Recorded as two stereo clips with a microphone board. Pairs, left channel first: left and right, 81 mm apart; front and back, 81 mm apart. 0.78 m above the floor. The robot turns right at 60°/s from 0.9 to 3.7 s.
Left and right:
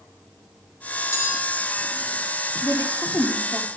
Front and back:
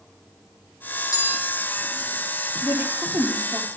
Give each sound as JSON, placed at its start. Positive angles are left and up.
{"t": 1.1, "sound": "a bell", "azimuth_deg": 35, "distance_m": 2.5}
{"t": 2.6, "sound": "a woman speaking", "azimuth_deg": 115, "distance_m": 2.5}